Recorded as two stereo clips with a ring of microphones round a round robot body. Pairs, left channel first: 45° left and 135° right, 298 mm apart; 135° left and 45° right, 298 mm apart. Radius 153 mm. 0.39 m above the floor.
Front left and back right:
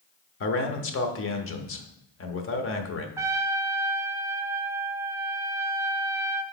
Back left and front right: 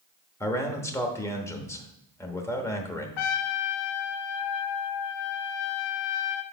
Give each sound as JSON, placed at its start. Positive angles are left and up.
{"t": 0.4, "sound": "a man speaking", "azimuth_deg": 60, "distance_m": 0.9}
{"t": 3.2, "sound": "a trumpet", "azimuth_deg": 145, "distance_m": 0.6}